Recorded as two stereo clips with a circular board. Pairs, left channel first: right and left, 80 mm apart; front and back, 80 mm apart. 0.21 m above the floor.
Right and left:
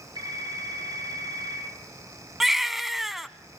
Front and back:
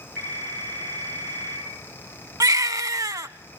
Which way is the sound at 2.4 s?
175° left.